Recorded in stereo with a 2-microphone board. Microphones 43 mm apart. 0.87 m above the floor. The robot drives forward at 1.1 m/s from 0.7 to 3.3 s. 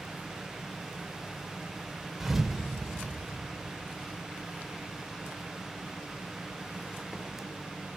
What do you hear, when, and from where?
2.2 s a thud: 10° right (ahead or behind), 1.4 m; by 3.0 s 5° right (ahead or behind), 2.5 m